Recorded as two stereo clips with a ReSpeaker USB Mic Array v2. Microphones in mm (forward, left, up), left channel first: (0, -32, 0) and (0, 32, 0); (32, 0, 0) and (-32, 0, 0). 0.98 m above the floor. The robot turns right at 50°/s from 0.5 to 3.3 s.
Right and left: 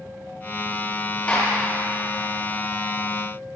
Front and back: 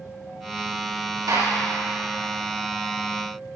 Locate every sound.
1.3 s a gunshot: 165° right, 6 m; by 1.5 s 150° right, 6 m